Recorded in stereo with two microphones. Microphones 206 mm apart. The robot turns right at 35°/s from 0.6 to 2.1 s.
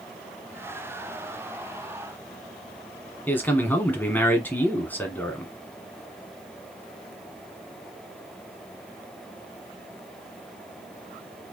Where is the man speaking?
10° left (ahead or behind), 1.4 m.